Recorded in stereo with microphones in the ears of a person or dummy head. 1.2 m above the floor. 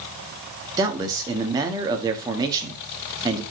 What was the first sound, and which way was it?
A man speaking, 15° right (ahead or behind).